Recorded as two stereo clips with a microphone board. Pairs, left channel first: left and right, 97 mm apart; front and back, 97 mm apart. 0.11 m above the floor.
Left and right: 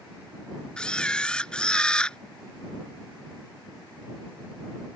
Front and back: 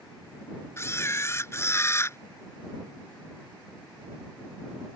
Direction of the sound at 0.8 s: 20° left.